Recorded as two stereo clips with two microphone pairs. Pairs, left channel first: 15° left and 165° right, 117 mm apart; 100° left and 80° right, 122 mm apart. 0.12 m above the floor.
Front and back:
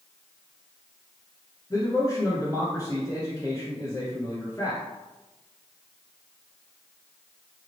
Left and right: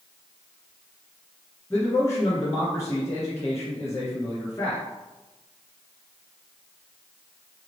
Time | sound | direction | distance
1.7 | a man speaking | 55° left | 1.5 m